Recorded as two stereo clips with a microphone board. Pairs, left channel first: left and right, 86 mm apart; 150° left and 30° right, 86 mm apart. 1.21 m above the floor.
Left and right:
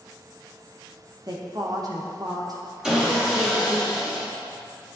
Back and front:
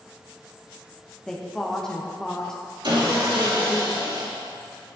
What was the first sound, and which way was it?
A woman speaking, 130° right.